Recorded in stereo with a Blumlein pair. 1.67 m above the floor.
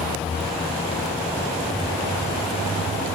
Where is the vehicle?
15° left; by 3.2 s 25° right.